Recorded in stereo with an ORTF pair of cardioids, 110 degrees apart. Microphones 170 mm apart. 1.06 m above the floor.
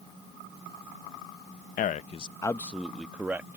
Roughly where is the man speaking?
Ahead left.